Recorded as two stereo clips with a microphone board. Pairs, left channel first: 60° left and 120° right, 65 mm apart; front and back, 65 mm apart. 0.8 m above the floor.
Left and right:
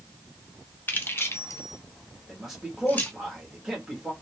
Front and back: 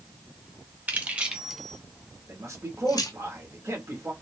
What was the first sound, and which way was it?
Keys jangling, 115° left.